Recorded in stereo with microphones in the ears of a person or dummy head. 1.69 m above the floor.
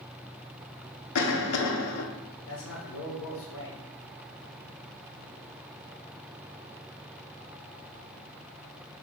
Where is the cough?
85° left, 0.7 m.